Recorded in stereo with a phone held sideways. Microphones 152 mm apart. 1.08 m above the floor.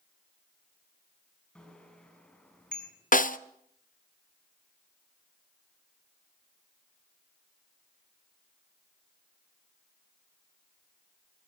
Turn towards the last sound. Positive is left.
turn(degrees=60)  # may be behind; listen again after turning